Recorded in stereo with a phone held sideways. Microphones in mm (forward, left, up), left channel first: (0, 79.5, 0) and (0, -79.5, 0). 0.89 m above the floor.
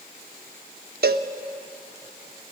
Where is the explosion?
No explosion in this recording.